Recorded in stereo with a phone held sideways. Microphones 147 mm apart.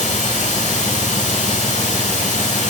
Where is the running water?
60° left (ahead or behind), 9 m.